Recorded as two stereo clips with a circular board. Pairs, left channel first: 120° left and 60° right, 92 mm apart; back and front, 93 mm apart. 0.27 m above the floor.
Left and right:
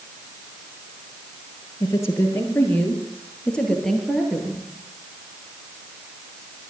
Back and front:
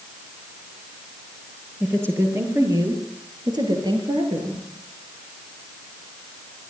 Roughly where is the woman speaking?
Ahead left.